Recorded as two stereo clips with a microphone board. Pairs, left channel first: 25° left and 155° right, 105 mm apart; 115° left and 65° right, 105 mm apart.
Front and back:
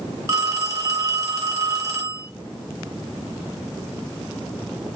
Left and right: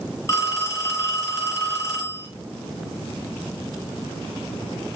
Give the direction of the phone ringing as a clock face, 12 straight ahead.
7 o'clock.